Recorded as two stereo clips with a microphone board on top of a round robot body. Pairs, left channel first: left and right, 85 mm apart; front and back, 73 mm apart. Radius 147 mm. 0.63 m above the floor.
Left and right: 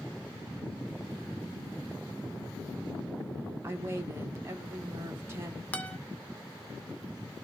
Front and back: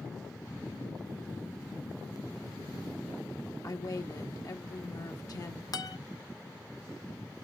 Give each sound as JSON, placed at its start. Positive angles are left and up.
{"t": 3.6, "sound": "a woman speaking", "azimuth_deg": -30, "distance_m": 1.2}
{"t": 5.7, "sound": "a guitar", "azimuth_deg": 20, "distance_m": 1.2}